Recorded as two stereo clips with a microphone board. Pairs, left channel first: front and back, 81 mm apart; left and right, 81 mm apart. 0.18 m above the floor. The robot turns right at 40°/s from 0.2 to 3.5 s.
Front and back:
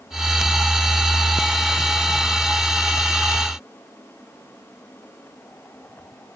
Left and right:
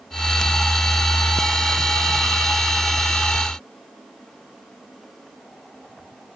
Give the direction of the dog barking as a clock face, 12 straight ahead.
No dog barking in this recording.